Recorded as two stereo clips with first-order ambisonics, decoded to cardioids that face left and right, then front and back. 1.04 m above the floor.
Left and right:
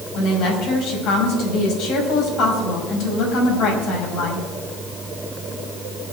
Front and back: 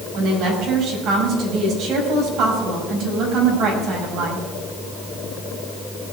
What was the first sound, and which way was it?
A woman speaking, 130° left.